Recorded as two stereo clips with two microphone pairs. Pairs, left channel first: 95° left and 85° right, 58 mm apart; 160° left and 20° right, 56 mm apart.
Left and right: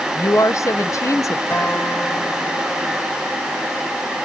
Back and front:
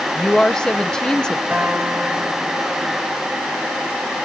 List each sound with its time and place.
0.1 s a woman speaking: 90° left, 0.7 m
1.5 s a guitar: 50° left, 3.5 m